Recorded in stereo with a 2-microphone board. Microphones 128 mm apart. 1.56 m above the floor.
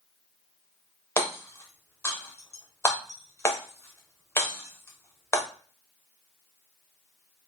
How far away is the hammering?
About 0.8 m.